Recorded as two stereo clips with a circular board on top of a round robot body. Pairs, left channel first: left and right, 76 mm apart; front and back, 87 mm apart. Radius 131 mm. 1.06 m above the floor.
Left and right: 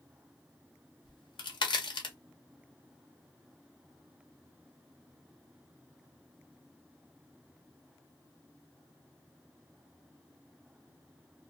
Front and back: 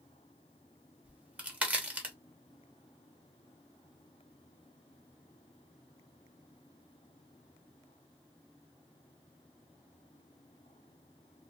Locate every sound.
1.1 s a crack: 105° left, 0.9 m